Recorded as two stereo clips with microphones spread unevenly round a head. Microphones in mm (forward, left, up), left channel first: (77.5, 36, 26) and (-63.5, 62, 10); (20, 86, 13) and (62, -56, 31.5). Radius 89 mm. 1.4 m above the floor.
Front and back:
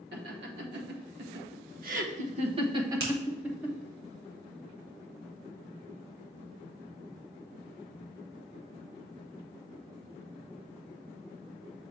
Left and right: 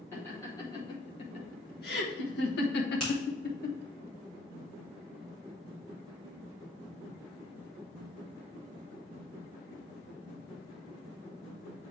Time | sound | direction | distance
0.1 | laughter | 175° right | 1.9 m
3.0 | a finger snap | 165° right | 2.5 m